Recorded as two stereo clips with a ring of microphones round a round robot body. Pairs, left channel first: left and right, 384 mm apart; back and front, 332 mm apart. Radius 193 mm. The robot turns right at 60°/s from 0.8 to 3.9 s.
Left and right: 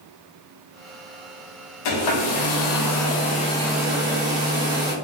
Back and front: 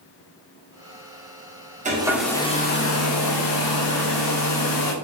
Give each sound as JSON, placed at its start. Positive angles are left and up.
{"t": 1.9, "sound": "a hair dryer", "azimuth_deg": 70, "distance_m": 0.6}